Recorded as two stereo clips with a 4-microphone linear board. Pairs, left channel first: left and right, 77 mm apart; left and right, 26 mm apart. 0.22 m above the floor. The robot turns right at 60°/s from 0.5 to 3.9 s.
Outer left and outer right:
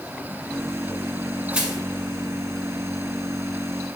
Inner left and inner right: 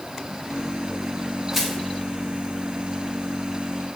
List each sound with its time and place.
1.5 s crushing: 20° right (ahead or behind), 2 m; by 1.8 s 5° right (ahead or behind), 2 m